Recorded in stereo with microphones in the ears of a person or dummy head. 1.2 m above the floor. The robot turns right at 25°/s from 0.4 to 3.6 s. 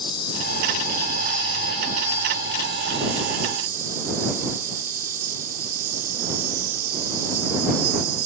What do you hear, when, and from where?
0.0 s an insect: 155° left; by 8.3 s 125° right